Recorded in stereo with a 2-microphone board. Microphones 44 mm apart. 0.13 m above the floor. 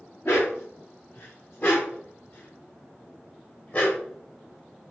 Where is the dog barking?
60° left (ahead or behind), 6.5 m; by 4.0 s 45° left (ahead or behind), 9 m.